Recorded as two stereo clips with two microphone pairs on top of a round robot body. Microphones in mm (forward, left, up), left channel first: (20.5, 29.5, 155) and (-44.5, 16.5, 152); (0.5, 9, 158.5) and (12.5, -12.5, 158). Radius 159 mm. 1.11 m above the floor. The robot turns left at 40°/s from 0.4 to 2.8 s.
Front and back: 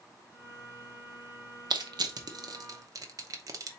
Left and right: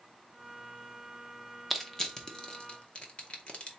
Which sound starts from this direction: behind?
Crushing, at 1.7 s.